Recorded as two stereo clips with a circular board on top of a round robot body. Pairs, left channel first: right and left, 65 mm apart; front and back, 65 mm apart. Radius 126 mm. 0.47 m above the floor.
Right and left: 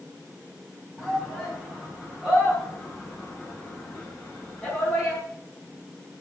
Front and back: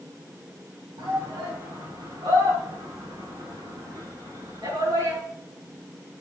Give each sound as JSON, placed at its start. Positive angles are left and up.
{"t": 1.0, "sound": "a shout", "azimuth_deg": 175, "distance_m": 4.0}